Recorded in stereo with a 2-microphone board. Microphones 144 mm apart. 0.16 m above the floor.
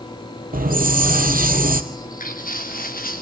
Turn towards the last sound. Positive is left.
turn(degrees=80)